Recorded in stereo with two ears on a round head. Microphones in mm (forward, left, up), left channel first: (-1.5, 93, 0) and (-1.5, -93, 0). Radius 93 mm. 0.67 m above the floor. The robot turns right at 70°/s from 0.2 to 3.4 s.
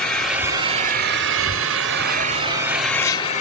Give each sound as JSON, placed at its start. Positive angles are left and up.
{"t": 0.0, "sound": "an engine running", "azimuth_deg": 175, "distance_m": 0.8}